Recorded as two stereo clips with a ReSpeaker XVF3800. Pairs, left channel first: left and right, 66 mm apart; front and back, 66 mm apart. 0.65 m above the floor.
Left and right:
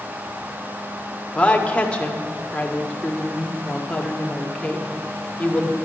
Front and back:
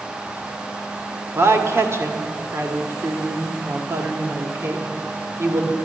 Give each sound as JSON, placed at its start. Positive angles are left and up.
{"t": 1.4, "sound": "a woman speaking", "azimuth_deg": 155, "distance_m": 1.5}